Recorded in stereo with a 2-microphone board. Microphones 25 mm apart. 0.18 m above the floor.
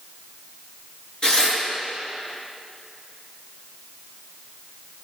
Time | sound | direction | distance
1.2 | tearing paper | 35° left (ahead or behind) | 3 m